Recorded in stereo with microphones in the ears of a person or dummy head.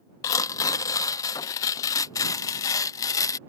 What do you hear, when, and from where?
0.2 s tearing paper: 25° left (ahead or behind)